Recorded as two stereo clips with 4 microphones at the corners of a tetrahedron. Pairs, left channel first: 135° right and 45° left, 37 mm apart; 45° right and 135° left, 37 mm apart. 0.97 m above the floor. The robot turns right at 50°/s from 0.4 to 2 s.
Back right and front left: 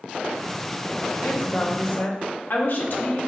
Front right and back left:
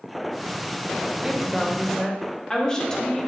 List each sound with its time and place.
1.2 s a woman speaking: 155° right, 1.4 m; by 3.3 s 115° right, 1.4 m